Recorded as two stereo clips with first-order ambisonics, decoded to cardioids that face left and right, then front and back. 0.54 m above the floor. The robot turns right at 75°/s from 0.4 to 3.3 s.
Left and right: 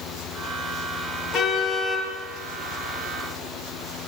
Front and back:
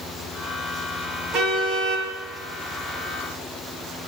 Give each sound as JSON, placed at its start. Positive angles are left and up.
{"t": 1.3, "sound": "a car horn", "azimuth_deg": 135, "distance_m": 6.5}